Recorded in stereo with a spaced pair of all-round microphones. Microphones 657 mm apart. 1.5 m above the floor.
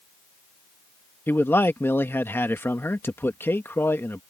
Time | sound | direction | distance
1.3 | a man speaking | 5° left (ahead or behind) | ?